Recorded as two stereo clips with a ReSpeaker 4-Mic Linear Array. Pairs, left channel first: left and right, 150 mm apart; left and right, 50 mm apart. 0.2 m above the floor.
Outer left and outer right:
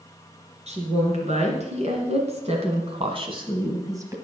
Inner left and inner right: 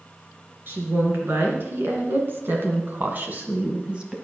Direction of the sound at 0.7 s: 50° right (ahead or behind).